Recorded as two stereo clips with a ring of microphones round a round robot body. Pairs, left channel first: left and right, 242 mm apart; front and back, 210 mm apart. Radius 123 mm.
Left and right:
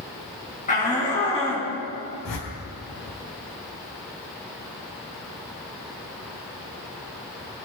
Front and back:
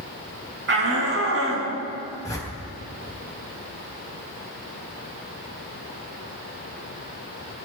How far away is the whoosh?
About 4.5 m.